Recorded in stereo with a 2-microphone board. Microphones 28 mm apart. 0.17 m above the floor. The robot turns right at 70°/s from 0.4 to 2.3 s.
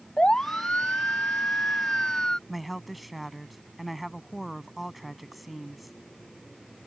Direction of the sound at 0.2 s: 30° left (ahead or behind).